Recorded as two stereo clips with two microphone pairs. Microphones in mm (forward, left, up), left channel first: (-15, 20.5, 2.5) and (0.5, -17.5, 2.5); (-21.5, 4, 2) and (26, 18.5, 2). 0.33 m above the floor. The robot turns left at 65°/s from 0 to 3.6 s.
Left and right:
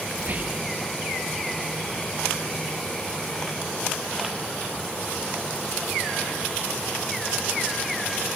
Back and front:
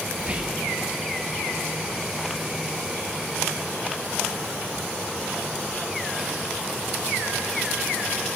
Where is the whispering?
35° right, 1.6 m; by 0.7 s 70° right, 1.6 m.